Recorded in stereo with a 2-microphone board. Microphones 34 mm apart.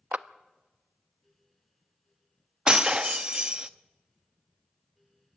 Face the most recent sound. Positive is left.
turn(degrees=-25)  # may be behind; listen again after turning